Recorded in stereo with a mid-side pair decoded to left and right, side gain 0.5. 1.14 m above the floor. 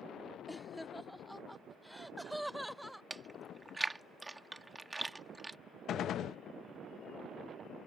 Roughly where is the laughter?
Ahead.